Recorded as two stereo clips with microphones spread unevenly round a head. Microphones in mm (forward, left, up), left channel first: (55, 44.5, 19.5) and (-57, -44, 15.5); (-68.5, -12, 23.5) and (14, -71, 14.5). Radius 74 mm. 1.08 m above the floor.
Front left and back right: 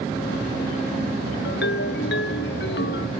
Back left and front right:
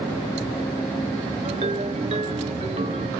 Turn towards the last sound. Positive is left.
turn(degrees=20)